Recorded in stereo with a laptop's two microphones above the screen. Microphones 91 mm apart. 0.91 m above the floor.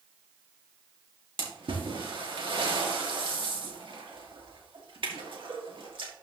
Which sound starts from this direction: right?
A splash, at 1.4 s.